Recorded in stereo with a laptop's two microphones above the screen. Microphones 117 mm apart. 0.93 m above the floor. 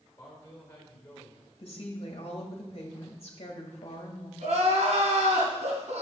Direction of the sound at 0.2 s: 15° left (ahead or behind).